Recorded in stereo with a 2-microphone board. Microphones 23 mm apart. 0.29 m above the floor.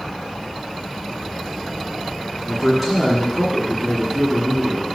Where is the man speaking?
5° right (ahead or behind), 2.5 m.